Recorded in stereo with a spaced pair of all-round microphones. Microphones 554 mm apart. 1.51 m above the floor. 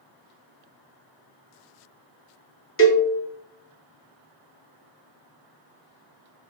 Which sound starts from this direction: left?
A cowbell, at 2.8 s.